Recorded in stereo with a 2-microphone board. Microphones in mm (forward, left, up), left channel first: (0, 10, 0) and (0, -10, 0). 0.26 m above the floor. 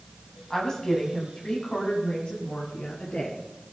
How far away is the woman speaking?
About 2 m.